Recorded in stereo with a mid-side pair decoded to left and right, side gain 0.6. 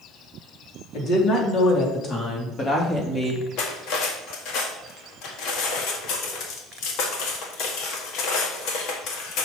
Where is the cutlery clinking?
70° left, 1.7 m.